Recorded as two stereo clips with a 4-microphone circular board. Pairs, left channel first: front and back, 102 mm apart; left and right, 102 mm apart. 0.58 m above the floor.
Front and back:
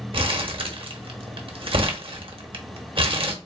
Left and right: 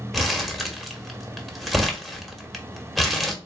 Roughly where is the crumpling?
Behind.